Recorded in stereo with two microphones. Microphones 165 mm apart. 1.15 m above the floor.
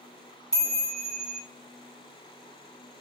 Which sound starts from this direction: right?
A chime, at 0.5 s.